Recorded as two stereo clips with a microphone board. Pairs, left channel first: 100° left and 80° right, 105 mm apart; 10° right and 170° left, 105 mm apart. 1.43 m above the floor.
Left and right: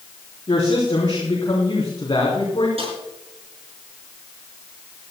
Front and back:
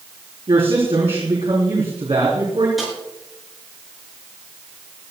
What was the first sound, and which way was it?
A woman speaking, 140° left.